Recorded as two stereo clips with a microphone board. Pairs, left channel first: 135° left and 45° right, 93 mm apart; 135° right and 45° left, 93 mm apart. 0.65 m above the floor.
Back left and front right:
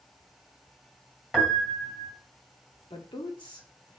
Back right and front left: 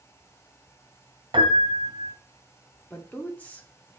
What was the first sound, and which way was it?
A piano, 55° left.